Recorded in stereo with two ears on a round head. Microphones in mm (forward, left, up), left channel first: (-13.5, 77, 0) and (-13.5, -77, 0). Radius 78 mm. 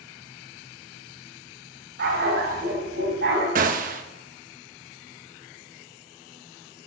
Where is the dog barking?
70° right (ahead or behind), 3.5 m; by 3.5 s 75° right (ahead or behind), 4 m.